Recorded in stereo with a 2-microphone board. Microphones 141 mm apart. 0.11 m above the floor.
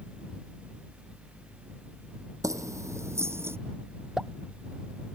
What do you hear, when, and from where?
2.4 s keys jangling: 25° right (ahead or behind); by 3.6 s 20° right (ahead or behind)
4.2 s a pop: 5° right (ahead or behind)